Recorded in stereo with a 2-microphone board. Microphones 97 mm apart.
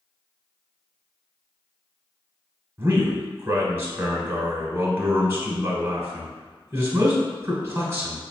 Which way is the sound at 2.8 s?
25° right (ahead or behind).